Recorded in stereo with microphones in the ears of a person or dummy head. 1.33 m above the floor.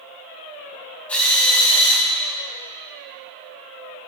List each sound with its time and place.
1.1 s a drill: 10° left (ahead or behind), 4 m